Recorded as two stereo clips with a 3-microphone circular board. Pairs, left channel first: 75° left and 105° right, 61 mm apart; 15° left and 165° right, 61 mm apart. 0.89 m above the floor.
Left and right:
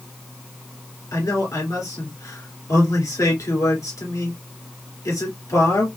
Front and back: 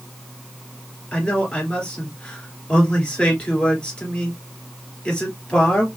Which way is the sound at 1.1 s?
80° left.